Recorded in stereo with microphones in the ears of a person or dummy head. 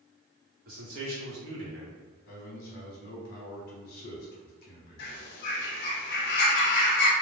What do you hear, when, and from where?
0.7 s a man speaking: 45° right (ahead or behind), 1.2 m; by 2.0 s 70° right (ahead or behind), 0.9 m
2.3 s a man speaking: 65° left (ahead or behind), 0.8 m
5.0 s a bird: 70° left (ahead or behind), 0.6 m